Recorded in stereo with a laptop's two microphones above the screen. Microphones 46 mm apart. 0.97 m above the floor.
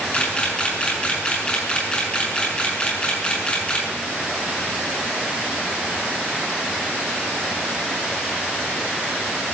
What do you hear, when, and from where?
0.1 s a camera shutter: 20° left (ahead or behind), 7 m